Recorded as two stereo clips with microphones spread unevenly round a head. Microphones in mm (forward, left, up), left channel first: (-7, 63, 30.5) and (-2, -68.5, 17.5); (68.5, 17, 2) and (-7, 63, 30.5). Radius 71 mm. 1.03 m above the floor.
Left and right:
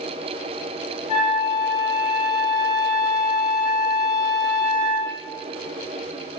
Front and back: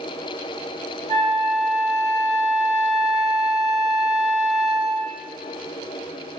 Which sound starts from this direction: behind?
A flute, at 1.1 s.